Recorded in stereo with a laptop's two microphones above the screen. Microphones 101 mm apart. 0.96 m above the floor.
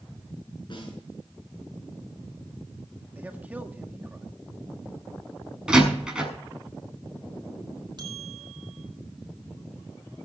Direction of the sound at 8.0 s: 45° right (ahead or behind).